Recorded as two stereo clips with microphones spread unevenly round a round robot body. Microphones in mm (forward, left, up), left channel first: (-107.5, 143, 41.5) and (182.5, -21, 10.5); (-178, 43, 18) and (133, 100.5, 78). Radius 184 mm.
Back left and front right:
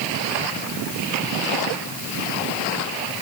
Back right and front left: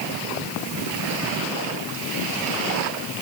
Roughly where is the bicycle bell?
No bicycle bell in this recording.